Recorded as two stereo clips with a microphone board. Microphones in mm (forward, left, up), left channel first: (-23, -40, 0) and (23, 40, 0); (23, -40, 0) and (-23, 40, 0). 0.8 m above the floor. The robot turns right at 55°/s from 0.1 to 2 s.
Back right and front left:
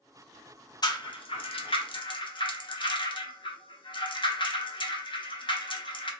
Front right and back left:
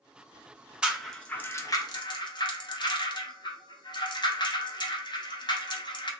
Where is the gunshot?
No gunshot in this recording.